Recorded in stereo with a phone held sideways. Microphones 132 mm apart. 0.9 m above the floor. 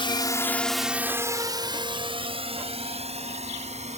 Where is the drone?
40° left (ahead or behind); by 4.0 s 55° right (ahead or behind).